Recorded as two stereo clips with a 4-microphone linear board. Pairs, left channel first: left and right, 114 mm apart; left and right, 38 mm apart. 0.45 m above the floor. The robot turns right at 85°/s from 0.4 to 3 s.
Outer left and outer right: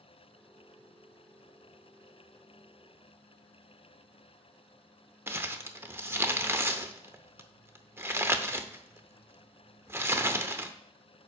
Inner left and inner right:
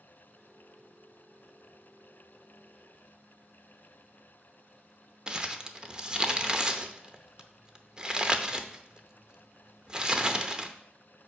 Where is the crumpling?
20° right (ahead or behind), 0.7 m.